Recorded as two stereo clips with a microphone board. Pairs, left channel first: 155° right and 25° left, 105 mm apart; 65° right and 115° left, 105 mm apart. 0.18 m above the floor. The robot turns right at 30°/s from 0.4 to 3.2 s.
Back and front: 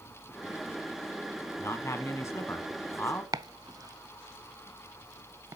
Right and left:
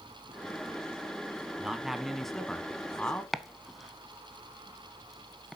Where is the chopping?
25° left, 0.5 m.